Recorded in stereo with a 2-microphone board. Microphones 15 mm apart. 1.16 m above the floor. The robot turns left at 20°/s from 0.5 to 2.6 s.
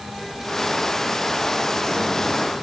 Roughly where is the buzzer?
No buzzer in this recording.